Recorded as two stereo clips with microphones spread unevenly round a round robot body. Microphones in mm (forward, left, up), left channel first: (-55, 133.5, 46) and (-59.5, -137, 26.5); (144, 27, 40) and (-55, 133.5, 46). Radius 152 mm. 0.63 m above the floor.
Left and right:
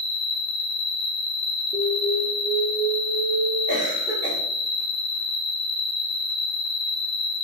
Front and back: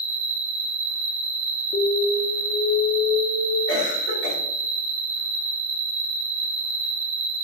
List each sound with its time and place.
0.0 s an insect: 115° left, 0.9 m
1.7 s an alarm: 25° left, 0.8 m
3.7 s a cough: 25° right, 1.9 m